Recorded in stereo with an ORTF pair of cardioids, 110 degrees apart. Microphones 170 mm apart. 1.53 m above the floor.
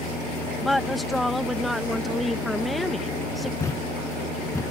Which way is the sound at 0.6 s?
Straight ahead.